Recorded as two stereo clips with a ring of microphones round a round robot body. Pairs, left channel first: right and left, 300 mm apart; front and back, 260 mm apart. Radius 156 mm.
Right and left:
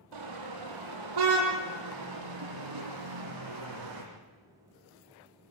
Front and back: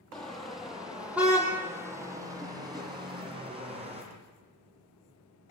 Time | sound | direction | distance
0.1 | a car horn | 85° left | 6 m